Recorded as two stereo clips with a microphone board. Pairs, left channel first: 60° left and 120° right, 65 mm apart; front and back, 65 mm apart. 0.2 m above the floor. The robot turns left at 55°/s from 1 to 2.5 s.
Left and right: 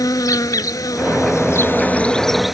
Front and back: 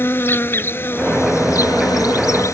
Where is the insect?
50° left; by 2.5 s 35° right.